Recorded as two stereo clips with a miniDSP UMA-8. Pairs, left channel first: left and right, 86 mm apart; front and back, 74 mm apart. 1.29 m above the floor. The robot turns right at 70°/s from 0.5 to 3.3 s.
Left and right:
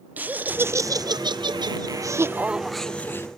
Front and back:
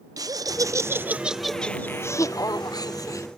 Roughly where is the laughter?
Behind right.